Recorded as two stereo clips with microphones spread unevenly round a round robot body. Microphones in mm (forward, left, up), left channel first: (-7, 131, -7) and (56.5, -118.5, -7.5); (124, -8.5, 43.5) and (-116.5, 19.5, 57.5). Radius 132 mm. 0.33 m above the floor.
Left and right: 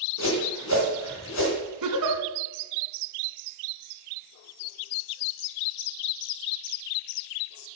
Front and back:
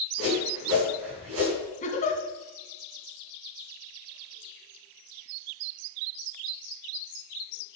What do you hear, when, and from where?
0.2 s a whoosh: 145° left, 4 m
1.8 s a giggle: 65° right, 1.8 m